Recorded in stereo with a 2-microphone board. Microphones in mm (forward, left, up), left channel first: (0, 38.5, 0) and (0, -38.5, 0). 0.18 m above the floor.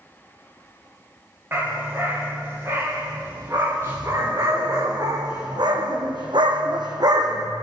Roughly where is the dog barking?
Right.